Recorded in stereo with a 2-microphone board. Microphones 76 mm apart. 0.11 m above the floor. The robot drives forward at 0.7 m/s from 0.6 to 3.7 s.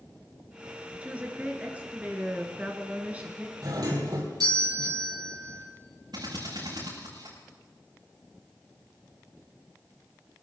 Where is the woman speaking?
20° right (ahead or behind), 1.9 m.